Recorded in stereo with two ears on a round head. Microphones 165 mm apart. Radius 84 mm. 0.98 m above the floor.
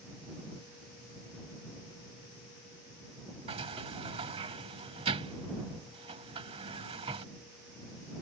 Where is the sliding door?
30° right (ahead or behind).